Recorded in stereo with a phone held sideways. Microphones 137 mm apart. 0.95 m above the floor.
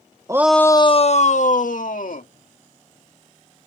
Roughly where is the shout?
Right.